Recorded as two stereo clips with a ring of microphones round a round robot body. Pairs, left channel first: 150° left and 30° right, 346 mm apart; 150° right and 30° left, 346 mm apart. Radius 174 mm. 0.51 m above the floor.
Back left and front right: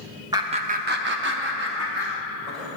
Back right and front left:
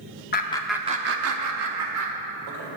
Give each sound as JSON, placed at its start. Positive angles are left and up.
{"t": 0.3, "sound": "laughter", "azimuth_deg": -105, "distance_m": 0.7}